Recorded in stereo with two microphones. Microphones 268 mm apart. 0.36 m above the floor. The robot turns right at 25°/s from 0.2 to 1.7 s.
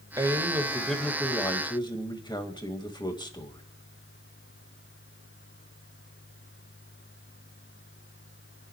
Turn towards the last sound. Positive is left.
turn(degrees=20)